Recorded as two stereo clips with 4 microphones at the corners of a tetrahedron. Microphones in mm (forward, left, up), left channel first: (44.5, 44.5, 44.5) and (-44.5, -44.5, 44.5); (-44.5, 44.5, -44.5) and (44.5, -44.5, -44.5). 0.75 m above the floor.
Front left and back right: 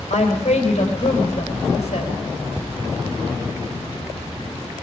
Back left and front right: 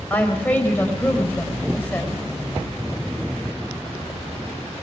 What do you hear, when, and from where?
0.1 s a woman speaking: 60° left, 4 m